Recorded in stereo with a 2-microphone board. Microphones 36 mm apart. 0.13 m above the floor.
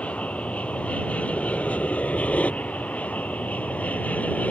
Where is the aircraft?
40° left (ahead or behind); by 4.5 s 45° left (ahead or behind).